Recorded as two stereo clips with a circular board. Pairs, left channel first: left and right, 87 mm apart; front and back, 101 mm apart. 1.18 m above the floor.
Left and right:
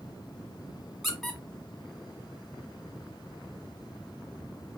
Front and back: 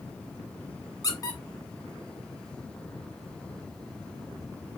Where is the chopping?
I don't hear chopping.